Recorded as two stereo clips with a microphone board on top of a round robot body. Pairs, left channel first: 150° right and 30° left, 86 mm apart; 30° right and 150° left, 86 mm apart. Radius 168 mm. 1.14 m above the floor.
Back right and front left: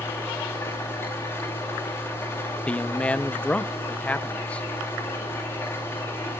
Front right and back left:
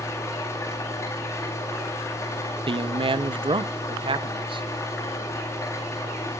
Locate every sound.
0.0 s an engine running: 90° right, 5 m
2.7 s a man speaking: 135° left, 0.6 m